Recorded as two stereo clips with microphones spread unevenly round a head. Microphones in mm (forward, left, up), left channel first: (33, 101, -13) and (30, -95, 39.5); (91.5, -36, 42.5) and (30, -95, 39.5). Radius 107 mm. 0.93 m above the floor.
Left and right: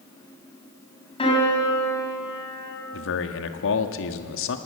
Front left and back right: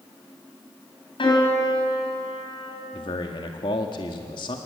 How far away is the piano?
About 8.5 m.